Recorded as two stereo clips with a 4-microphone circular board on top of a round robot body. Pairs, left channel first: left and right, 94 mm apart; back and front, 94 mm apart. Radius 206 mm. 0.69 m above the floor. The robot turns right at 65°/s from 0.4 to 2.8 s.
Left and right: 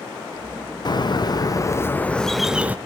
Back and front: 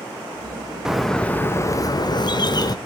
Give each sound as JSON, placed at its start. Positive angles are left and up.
{"t": 0.8, "sound": "a bird", "azimuth_deg": 80, "distance_m": 1.5}